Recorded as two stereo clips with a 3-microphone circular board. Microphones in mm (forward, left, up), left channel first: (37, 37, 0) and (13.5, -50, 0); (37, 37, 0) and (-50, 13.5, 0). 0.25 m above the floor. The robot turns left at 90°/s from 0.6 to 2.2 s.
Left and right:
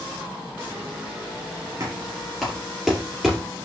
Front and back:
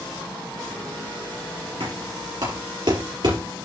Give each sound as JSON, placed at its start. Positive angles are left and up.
{"t": 1.8, "sound": "knocking", "azimuth_deg": -155, "distance_m": 4.5}